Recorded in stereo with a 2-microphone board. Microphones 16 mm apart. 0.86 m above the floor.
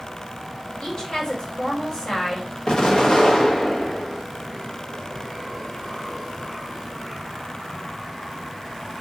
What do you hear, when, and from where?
0.8 s a woman speaking: 45° left (ahead or behind), 3 m
2.7 s an explosion: 55° left (ahead or behind), 1.6 m